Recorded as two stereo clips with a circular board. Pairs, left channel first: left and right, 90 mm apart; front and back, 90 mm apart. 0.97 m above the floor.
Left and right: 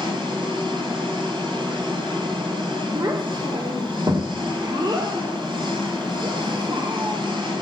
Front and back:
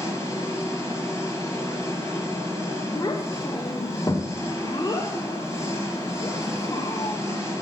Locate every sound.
0.0 s an engine running: 55° right, 5.5 m
3.0 s a child speaking: 45° right, 1.9 m